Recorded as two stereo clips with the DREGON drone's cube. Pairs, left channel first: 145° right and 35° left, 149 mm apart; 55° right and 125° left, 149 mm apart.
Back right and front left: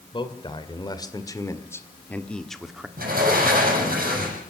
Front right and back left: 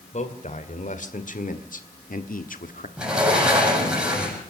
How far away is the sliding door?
About 7.5 m.